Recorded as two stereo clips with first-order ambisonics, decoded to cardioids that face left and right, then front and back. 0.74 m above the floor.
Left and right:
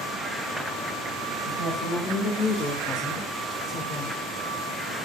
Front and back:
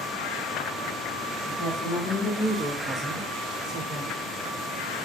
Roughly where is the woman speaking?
Ahead left.